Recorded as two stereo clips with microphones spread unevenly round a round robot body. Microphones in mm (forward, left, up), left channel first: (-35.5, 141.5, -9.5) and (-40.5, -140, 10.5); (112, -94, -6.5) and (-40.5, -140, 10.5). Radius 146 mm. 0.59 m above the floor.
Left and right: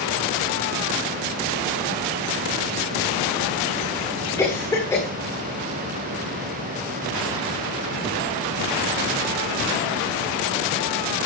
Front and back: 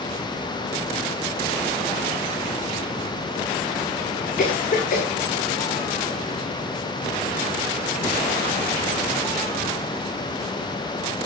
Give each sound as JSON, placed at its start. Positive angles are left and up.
{"t": 4.4, "sound": "a cough", "azimuth_deg": 10, "distance_m": 1.7}